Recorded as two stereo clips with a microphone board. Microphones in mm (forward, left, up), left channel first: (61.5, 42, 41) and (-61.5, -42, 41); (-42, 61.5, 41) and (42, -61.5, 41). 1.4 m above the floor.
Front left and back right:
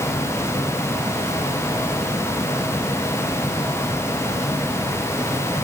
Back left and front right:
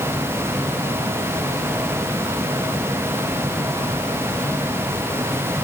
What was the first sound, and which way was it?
Only background noise.